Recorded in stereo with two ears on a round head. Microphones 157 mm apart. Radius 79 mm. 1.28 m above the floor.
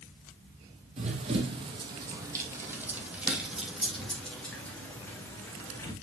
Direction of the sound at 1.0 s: 40° right (ahead or behind).